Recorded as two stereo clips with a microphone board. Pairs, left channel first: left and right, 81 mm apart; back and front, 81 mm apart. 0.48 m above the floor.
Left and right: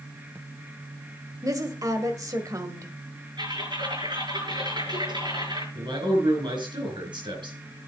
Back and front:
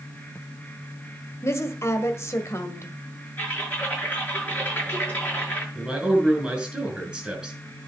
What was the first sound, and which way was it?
A woman speaking, 130° right.